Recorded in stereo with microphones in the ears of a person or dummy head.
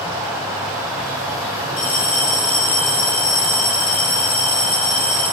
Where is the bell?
50° left (ahead or behind), 3.5 m.